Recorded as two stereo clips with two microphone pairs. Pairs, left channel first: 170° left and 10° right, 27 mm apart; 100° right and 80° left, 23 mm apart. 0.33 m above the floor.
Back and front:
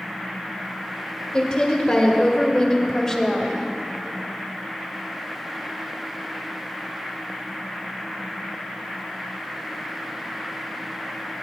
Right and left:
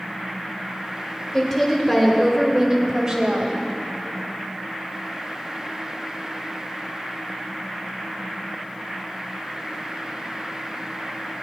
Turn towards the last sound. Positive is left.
turn(degrees=85)